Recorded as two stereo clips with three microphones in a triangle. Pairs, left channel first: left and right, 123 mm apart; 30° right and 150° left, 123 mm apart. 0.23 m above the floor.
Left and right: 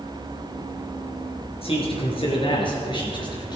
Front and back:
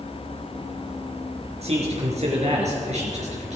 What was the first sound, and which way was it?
A man speaking, 125° left.